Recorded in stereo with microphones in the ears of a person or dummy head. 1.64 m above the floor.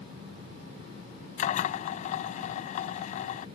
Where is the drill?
35° left (ahead or behind).